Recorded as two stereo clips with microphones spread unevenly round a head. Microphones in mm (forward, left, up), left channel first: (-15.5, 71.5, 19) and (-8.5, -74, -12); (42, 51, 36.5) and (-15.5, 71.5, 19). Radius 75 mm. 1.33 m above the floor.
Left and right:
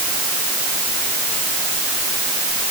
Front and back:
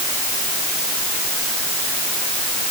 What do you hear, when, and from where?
Only background noise.